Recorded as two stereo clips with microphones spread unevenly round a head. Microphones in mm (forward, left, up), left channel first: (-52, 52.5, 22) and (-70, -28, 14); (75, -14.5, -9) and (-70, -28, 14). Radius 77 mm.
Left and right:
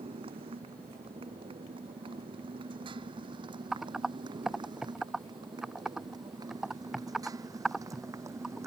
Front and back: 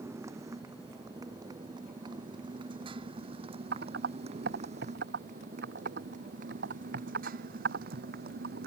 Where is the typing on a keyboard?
170° left.